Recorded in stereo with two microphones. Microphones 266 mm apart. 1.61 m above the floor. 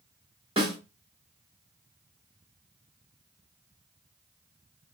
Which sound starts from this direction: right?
A snare drum, at 0.6 s.